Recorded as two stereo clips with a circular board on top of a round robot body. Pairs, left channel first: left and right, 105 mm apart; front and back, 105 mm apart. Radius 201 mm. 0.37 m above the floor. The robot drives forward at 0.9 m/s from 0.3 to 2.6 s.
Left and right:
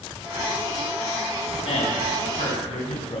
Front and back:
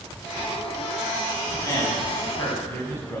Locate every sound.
1.6 s a man speaking: 60° left, 6 m; by 3.2 s 70° left, 5.5 m